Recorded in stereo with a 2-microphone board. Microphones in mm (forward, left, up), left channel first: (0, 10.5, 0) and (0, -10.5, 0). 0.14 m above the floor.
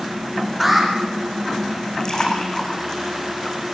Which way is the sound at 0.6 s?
5° right (ahead or behind).